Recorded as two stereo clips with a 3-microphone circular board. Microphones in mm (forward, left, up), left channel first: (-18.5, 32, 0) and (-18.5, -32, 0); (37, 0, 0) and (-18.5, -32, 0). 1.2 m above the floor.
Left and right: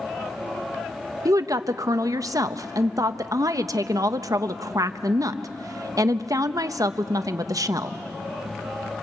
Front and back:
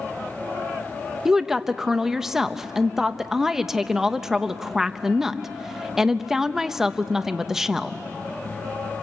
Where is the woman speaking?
65° right, 0.8 m.